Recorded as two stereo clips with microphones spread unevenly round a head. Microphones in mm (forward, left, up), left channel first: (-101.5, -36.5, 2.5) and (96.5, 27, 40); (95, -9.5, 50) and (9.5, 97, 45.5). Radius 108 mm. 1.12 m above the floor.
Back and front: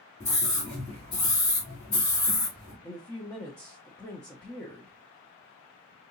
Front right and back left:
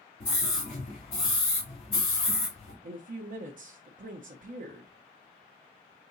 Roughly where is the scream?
Right.